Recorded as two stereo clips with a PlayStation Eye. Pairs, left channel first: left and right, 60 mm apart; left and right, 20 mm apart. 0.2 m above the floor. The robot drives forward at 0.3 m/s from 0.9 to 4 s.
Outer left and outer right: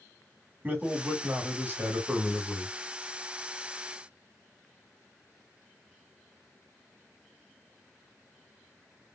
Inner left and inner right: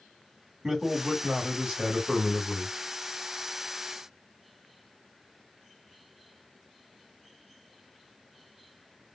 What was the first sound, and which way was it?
A man speaking, 30° right (ahead or behind).